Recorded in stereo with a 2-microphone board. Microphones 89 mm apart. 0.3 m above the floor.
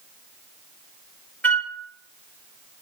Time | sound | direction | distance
1.4 | a flute | 20° left (ahead or behind) | 1.0 m